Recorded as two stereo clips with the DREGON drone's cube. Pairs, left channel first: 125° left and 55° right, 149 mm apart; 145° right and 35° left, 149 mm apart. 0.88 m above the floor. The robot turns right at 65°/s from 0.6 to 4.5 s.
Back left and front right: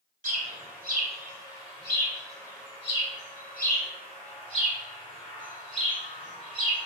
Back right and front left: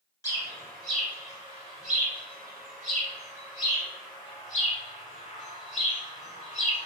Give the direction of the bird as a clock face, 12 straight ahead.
3 o'clock.